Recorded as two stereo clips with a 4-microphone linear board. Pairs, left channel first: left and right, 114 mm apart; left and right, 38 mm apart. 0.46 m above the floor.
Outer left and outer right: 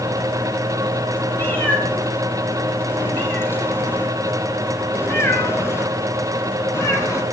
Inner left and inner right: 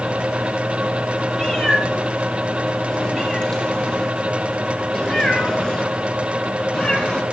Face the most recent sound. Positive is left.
turn(degrees=30)  # may be behind; listen again after turning